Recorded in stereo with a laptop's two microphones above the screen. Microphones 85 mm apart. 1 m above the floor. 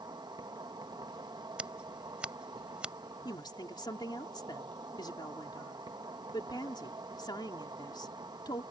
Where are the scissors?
15° right (ahead or behind).